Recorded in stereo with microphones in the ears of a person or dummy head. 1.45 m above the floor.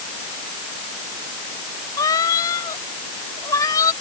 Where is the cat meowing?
20° left (ahead or behind).